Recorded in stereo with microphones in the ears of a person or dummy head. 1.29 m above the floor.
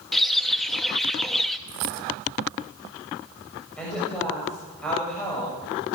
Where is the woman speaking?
10° left (ahead or behind), 6 m.